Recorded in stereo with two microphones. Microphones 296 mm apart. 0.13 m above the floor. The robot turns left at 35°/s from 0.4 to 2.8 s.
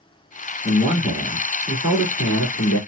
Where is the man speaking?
160° left, 1.8 m; by 2.8 s 85° left, 1.8 m.